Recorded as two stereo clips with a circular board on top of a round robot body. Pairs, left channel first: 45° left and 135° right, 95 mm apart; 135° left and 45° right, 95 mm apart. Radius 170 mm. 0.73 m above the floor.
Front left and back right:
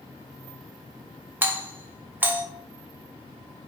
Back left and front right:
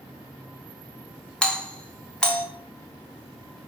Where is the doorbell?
160° right, 0.9 m.